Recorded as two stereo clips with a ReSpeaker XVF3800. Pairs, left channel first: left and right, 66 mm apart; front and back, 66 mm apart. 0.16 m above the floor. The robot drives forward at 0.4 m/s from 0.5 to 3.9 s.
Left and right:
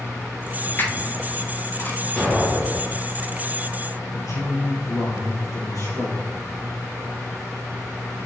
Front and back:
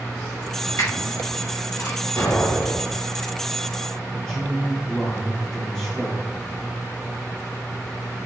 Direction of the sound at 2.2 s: 15° left.